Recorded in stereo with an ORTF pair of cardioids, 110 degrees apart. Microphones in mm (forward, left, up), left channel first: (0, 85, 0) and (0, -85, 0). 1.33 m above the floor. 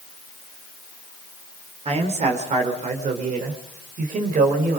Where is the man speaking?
40° right, 4 m; by 4.8 s 55° right, 5.5 m.